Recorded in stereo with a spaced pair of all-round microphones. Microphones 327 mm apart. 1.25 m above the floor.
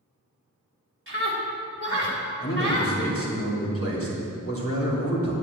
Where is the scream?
40° right (ahead or behind), 3.5 m.